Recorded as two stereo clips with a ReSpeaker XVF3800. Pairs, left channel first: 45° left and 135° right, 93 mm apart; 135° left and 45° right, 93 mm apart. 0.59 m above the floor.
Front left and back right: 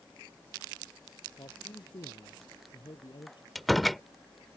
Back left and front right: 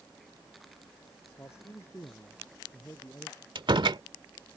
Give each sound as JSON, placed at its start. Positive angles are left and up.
{"t": 1.4, "sound": "a man speaking", "azimuth_deg": 75}
{"t": 3.5, "sound": "a door slam", "azimuth_deg": -45}